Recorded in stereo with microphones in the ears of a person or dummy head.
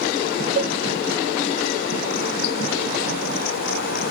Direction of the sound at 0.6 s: 75° right (ahead or behind).